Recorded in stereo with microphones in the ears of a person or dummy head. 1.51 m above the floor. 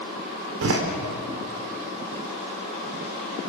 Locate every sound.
0.6 s a door slam: 75° right (ahead or behind), 3.5 m